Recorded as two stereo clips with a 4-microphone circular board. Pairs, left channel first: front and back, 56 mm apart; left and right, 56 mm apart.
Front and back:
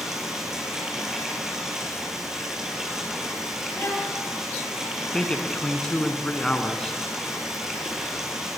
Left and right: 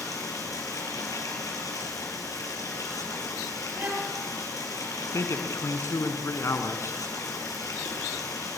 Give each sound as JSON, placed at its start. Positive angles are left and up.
{"t": 0.0, "sound": "running water", "azimuth_deg": 100, "distance_m": 5.5}
{"t": 3.8, "sound": "a violin", "azimuth_deg": -40, "distance_m": 5.5}
{"t": 5.1, "sound": "a man speaking", "azimuth_deg": 70, "distance_m": 2.5}